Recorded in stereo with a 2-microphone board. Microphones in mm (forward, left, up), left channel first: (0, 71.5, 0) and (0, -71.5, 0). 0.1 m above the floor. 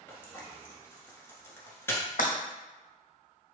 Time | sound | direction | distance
0.1 | frying | 15° left (ahead or behind) | 1.4 m
2.2 | breaking glass | 75° left (ahead or behind) | 1.5 m